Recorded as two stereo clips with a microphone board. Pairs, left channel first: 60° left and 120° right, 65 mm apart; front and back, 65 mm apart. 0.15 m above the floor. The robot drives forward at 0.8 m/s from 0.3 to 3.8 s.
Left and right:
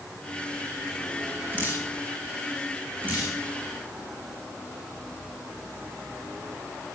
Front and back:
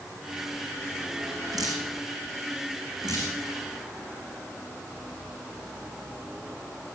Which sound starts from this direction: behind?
Dripping, at 1.5 s.